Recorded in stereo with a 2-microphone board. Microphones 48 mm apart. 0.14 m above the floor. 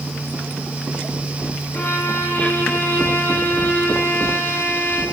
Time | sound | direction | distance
1.7 | a violin | 45° left (ahead or behind) | 6.5 m